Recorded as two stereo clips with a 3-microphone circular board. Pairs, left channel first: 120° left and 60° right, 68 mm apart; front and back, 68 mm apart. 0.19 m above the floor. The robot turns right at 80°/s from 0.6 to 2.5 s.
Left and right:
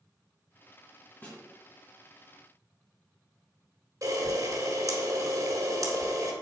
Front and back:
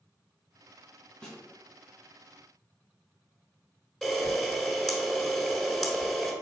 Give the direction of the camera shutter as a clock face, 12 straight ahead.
3 o'clock.